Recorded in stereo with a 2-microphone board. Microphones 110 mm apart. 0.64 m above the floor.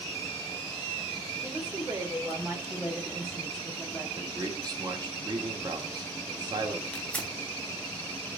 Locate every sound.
1.4 s a woman speaking: 20° right (ahead or behind), 2.5 m; by 4.0 s 15° left (ahead or behind), 1.8 m
4.2 s a man speaking: 40° right (ahead or behind), 2.0 m
6.9 s tearing paper: 10° left (ahead or behind), 1.2 m